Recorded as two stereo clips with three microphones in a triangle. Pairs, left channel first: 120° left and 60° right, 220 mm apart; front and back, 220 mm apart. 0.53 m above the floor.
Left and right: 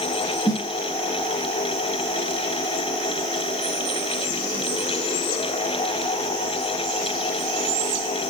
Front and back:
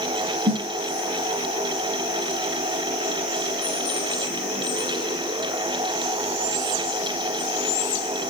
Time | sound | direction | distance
0.5 | a snare drum | 130° right | 4 m